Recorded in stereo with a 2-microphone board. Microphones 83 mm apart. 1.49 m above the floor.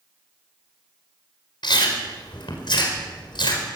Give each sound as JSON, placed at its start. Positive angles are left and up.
{"t": 1.6, "sound": "chewing", "side_deg": 85, "distance_m": 4.5}